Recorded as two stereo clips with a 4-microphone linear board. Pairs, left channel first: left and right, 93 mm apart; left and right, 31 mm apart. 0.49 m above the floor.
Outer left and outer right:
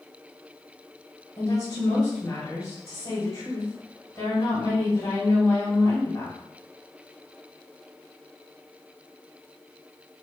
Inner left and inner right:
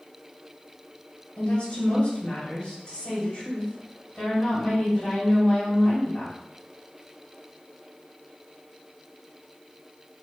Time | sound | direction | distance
1.4 | a woman speaking | 45° left (ahead or behind) | 1.9 m